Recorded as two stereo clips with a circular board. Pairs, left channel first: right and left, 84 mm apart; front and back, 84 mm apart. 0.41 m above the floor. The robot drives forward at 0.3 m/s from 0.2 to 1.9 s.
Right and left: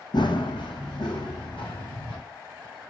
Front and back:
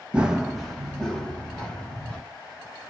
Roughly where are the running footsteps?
Right.